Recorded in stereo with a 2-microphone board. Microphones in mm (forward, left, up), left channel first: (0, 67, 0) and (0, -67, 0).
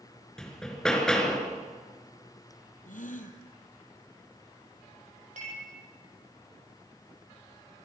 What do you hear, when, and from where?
0.4 s hammering: 5° left (ahead or behind), 3 m
2.9 s a gasp: 75° left (ahead or behind), 2.0 m
5.4 s dishes clattering: 65° right (ahead or behind), 7 m